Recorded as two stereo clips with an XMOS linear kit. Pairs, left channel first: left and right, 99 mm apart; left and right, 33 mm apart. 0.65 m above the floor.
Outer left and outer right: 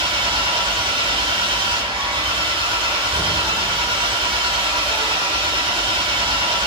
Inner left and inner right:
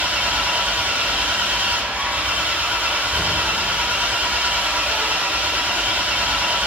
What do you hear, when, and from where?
0.0 s an engine running: 50° right (ahead or behind), 2.5 m